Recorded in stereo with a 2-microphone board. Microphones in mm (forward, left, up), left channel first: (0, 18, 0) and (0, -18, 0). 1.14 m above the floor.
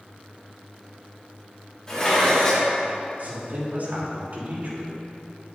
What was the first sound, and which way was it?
Dishes clattering, 15° left (ahead or behind).